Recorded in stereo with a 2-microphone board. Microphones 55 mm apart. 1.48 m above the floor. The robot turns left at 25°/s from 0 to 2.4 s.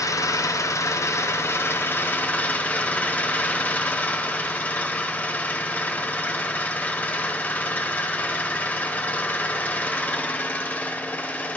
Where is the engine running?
85° left, 0.8 m; by 11.6 s 25° left, 0.8 m.